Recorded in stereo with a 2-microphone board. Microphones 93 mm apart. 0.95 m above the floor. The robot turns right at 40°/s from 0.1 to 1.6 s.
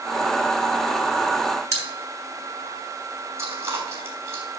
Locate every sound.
1.7 s a pop: 35° right (ahead or behind), 3.5 m
3.4 s chewing: 30° right (ahead or behind), 3 m